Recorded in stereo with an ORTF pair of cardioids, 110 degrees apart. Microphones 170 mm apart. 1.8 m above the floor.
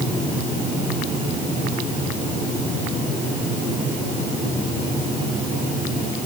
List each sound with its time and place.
Only background noise.